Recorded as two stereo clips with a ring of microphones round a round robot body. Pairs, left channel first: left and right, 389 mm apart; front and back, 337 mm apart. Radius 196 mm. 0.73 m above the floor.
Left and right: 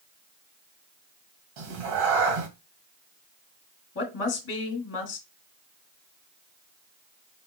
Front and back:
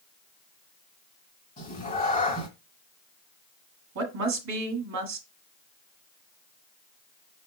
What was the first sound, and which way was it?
A cat meowing, 75° right.